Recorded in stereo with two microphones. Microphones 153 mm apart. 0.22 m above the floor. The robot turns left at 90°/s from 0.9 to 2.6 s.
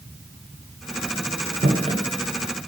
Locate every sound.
1.6 s footsteps: 60° right (ahead or behind), 2.5 m; by 2.0 s 25° right (ahead or behind), 2.5 m